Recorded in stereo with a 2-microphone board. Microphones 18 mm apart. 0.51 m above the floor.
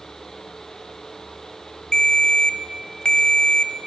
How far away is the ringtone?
About 0.6 m.